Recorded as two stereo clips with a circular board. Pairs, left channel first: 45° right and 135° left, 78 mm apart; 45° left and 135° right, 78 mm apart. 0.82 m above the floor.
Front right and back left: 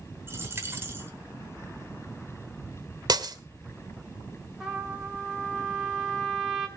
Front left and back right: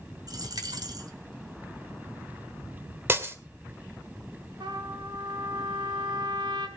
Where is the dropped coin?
165° right, 2 m.